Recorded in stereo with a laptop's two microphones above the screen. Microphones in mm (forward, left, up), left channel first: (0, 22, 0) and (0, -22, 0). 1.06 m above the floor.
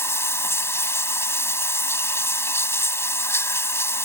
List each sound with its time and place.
0.0 s running water: 80° left